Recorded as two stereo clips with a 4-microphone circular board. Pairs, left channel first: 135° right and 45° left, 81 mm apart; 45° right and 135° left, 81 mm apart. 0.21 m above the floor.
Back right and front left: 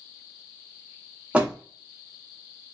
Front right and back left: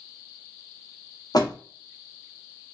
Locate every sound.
1.3 s a door slam: 30° right, 1.5 m